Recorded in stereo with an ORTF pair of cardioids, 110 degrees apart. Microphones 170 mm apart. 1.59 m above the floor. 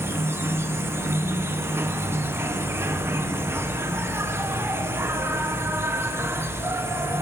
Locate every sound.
0.0 s an insect: 15° right, 1.1 m